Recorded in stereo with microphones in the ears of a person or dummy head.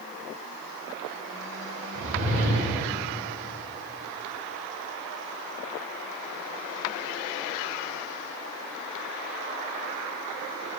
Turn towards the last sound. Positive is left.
turn(degrees=-55)  # may be behind; listen again after turning